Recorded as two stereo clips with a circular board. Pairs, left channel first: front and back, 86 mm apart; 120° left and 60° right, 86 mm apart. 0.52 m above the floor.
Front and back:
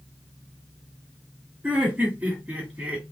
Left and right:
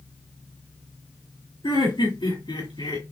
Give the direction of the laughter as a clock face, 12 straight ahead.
8 o'clock.